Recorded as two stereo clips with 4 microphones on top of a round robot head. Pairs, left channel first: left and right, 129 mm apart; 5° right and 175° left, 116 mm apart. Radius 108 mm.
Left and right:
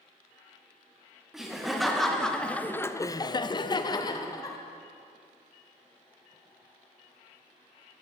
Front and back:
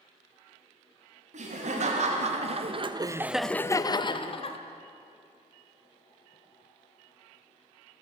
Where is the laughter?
175° right, 1.4 m; by 4.6 s 30° left, 1.0 m.